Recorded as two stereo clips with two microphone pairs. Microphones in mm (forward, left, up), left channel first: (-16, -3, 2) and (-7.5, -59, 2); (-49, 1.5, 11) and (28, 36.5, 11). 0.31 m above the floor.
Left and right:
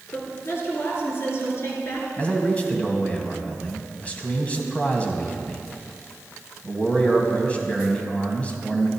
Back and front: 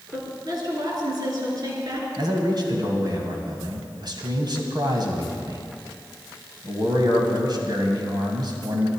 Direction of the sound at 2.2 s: 35° left.